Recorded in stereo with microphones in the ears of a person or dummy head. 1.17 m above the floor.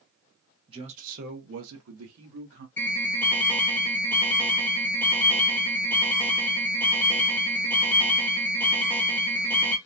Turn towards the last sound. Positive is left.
turn(degrees=10)  # may be behind; listen again after turning